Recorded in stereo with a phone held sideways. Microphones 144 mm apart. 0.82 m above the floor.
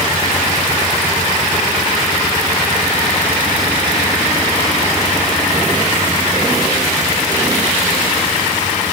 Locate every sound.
Only background noise.